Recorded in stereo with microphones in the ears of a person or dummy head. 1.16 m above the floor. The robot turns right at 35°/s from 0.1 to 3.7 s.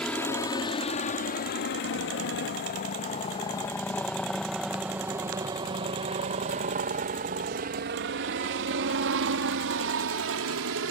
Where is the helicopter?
10° left (ahead or behind); by 10.9 s 65° right (ahead or behind).